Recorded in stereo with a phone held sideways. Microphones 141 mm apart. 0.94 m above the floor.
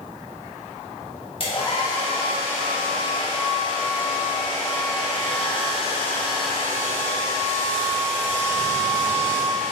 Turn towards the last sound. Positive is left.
turn(degrees=40)  # may be behind; listen again after turning